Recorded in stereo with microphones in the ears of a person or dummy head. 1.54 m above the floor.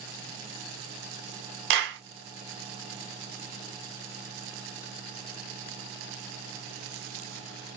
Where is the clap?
55° right (ahead or behind), 0.5 m.